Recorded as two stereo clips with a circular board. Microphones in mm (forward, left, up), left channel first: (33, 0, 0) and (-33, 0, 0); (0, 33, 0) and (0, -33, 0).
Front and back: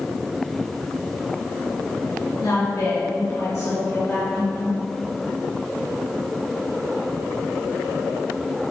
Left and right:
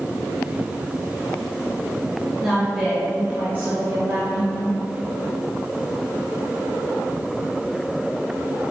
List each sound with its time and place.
2.4 s a woman speaking: straight ahead, 2.5 m; by 4.8 s 70° right, 2 m